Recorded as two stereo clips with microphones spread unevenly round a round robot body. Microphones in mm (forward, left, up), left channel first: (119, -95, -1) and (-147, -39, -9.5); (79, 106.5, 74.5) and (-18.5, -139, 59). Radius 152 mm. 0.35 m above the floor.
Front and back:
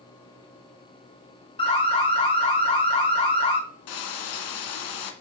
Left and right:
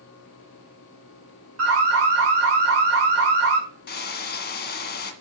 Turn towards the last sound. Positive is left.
turn(degrees=15)